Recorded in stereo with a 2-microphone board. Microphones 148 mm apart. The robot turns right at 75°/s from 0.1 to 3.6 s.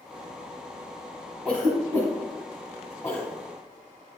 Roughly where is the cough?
Centre.